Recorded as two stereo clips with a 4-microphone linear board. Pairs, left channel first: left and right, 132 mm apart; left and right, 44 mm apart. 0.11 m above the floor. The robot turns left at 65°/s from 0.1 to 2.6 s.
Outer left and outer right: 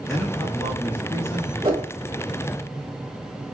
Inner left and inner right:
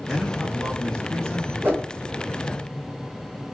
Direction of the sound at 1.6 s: 40° right (ahead or behind).